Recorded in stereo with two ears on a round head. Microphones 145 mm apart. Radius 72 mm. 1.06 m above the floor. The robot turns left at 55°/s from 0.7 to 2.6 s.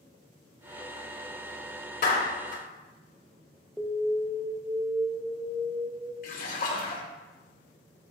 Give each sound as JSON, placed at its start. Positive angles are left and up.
{"t": 2.0, "sound": "a clap", "side_deg": 60, "distance_m": 2.5}
{"t": 3.8, "sound": "an alarm", "side_deg": 0, "distance_m": 0.7}
{"t": 6.2, "sound": "a splash", "side_deg": 55, "distance_m": 1.9}